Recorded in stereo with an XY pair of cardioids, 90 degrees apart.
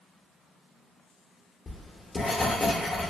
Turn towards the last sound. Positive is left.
turn(degrees=45)